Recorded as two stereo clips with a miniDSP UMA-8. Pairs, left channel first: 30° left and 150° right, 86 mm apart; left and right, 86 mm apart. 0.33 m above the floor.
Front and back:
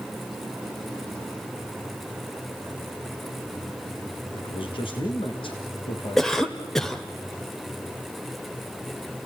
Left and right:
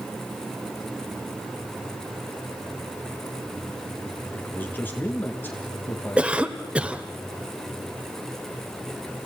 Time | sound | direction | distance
4.3 | a man speaking | 25° left | 4 m
6.2 | a cough | 45° right | 1.4 m